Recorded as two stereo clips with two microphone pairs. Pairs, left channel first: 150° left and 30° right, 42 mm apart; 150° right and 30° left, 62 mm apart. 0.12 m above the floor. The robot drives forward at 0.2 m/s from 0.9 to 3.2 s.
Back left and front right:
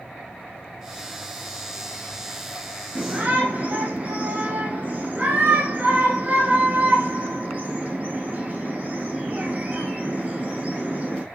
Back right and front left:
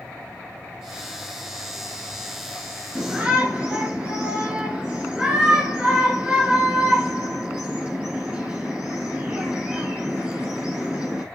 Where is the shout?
40° right, 1.5 m; by 11.2 s 45° right, 1.5 m.